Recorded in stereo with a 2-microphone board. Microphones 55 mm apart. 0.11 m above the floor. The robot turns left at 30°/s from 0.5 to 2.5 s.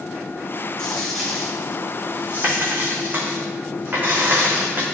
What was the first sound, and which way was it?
A dropped coin, 15° left (ahead or behind).